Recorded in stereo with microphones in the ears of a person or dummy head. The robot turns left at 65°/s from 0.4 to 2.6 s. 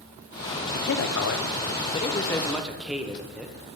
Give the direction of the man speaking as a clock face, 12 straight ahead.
8 o'clock.